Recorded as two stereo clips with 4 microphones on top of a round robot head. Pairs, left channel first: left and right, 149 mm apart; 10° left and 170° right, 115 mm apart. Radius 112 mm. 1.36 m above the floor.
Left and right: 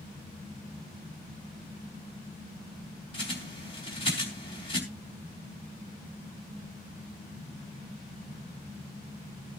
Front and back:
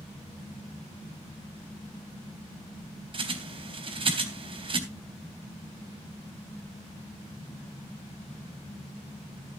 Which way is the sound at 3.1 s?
155° left.